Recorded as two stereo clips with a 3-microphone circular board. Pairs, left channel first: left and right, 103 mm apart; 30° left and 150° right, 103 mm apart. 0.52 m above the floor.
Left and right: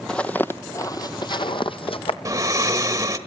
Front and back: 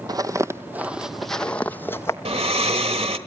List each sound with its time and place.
0.1 s footsteps: 170° left, 0.8 m; by 2.1 s 90° left, 1.1 m
2.2 s snoring: 145° right, 1.3 m